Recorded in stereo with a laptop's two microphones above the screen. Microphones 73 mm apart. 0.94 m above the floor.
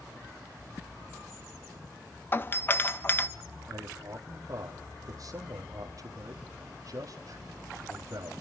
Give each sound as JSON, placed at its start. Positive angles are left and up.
{"t": 2.3, "sound": "a doorbell", "side_deg": 30, "distance_m": 1.2}
{"t": 3.7, "sound": "a man speaking", "side_deg": -50, "distance_m": 2.0}